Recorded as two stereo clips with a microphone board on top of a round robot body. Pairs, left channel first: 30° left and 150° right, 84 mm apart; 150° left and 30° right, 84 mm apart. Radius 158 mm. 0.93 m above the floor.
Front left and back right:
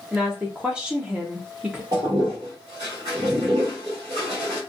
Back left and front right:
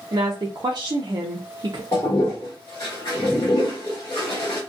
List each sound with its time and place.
0.1 s a woman speaking: 70° right, 0.6 m
1.9 s a toilet flushing: 165° right, 0.6 m